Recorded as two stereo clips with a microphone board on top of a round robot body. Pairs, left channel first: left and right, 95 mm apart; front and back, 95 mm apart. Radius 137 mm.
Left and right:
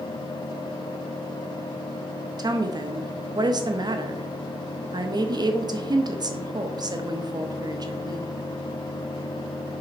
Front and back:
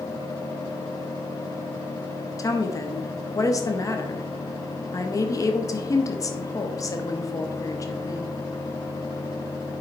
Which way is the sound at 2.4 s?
50° right.